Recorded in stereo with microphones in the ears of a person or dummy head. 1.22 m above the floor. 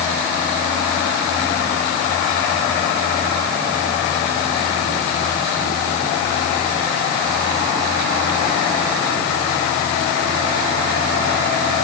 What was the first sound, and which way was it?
Only background noise.